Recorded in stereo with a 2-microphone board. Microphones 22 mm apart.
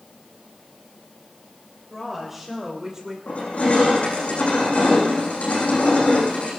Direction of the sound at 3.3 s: 75° left (ahead or behind).